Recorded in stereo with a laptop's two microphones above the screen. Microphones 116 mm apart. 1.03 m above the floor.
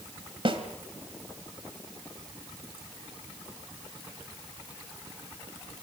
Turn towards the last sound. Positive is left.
turn(degrees=-50)  # may be behind; listen again after turning